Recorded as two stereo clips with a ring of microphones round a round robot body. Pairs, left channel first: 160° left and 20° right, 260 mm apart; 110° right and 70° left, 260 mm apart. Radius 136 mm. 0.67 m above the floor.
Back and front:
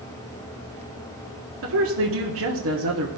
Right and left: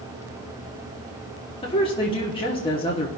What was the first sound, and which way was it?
A woman speaking, 45° right.